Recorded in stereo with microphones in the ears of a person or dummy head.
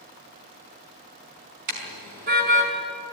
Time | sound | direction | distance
1.7 | a car horn | 50° right (ahead or behind) | 5 m